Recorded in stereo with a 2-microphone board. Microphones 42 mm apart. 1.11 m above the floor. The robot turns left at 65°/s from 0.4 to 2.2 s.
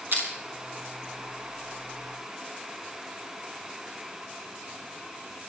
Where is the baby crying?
No baby crying in this recording.